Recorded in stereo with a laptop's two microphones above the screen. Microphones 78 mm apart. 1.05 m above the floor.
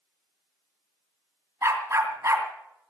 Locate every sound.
1.6 s a dog barking: 35° right (ahead or behind), 2.5 m